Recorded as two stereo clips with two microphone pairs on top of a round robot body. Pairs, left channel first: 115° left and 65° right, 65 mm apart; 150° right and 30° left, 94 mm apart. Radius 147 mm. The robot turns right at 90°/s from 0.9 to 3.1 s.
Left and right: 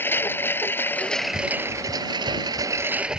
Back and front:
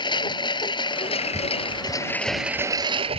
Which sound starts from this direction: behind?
A lawn mower, at 0.0 s.